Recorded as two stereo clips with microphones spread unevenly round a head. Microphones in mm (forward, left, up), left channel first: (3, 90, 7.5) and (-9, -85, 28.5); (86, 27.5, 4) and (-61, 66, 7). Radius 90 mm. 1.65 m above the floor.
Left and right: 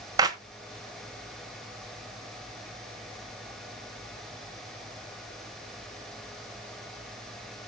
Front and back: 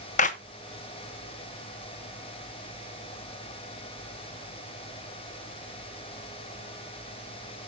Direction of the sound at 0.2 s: 40° right.